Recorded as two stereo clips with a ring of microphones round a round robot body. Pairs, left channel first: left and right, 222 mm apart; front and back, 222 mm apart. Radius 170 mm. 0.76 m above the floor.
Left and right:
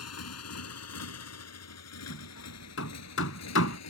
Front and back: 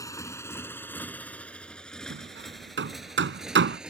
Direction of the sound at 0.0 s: 75° left.